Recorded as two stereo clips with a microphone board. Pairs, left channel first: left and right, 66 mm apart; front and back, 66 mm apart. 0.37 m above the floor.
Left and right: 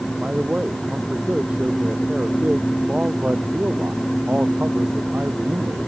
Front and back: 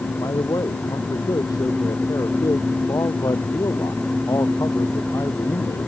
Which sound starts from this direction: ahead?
A man speaking, at 0.2 s.